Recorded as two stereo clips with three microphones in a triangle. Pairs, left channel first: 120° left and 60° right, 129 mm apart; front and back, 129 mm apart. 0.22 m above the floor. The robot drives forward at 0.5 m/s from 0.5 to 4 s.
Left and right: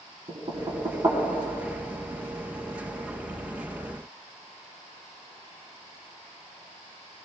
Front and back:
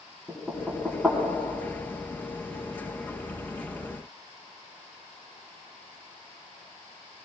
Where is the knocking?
85° right, 1.7 m; by 1.2 s 100° right, 1.8 m.